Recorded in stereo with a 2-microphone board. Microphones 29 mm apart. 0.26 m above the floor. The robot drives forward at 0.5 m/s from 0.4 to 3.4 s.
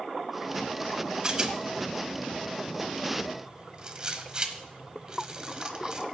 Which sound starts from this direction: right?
A rattle, at 1.2 s.